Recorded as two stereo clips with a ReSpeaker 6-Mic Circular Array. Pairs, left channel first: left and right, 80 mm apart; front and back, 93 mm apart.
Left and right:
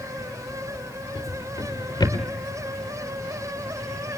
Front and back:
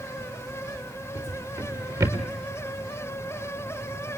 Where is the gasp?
I don't hear a gasp.